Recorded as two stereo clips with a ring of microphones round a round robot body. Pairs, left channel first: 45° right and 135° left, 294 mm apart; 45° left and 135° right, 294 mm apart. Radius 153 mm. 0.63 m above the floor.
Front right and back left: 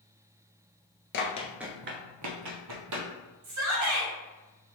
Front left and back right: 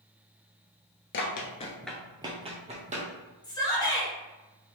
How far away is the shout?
About 2 m.